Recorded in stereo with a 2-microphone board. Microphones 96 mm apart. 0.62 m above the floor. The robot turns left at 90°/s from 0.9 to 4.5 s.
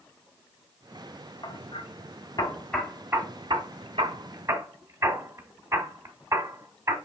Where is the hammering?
45° left (ahead or behind), 1.1 m; by 7.0 s 35° right (ahead or behind), 1.1 m.